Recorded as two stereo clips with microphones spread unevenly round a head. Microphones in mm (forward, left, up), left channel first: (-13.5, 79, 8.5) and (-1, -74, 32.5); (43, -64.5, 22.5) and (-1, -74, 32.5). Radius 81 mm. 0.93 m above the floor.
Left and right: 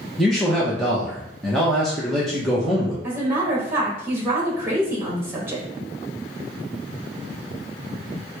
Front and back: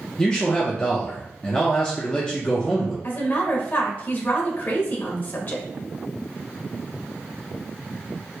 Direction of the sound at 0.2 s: 25° left.